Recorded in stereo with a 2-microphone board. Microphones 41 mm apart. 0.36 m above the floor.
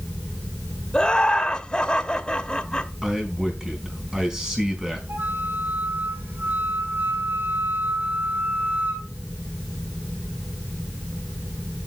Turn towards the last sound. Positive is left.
turn(degrees=-65)  # may be behind; listen again after turning